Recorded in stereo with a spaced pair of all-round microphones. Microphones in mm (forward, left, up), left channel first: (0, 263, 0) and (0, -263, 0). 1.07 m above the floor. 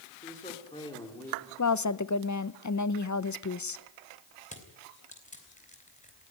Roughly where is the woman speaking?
Left.